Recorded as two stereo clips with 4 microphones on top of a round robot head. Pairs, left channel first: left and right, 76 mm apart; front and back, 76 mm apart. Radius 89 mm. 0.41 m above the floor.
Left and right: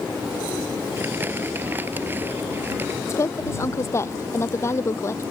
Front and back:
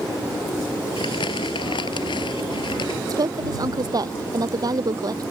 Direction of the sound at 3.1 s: 145° left.